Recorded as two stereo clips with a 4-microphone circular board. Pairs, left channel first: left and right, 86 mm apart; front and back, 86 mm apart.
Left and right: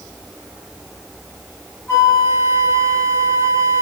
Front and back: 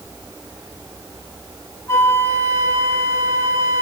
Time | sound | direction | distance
1.9 | a flute | 45° left | 2 m